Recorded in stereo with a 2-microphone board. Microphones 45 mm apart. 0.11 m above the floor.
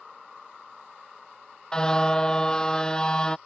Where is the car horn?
20° left (ahead or behind).